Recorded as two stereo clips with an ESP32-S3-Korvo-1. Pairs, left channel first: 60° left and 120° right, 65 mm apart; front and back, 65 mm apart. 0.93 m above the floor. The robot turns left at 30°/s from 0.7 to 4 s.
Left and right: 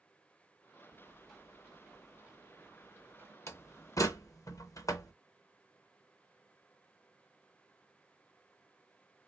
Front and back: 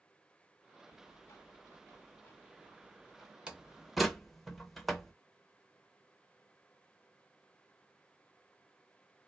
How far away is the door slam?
About 0.7 m.